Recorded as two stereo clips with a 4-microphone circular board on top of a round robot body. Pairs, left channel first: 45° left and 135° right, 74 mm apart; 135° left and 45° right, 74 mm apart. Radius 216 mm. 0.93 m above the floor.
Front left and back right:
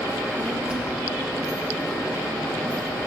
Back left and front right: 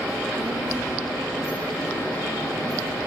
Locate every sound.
0.1 s a child speaking: 70° right, 1.9 m; by 3.1 s 20° right, 0.8 m